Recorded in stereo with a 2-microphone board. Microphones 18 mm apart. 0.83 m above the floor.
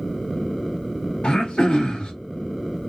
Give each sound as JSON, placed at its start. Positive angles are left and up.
{"t": 1.2, "sound": "throat clearing", "side_deg": 80, "distance_m": 1.1}